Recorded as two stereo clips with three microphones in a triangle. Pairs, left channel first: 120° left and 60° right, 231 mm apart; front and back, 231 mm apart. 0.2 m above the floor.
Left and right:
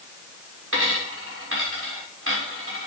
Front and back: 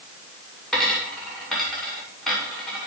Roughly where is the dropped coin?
Right.